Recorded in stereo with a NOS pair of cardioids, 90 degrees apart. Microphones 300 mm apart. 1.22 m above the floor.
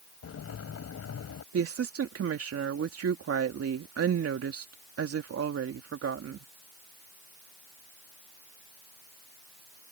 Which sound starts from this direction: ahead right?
A woman speaking, at 1.5 s.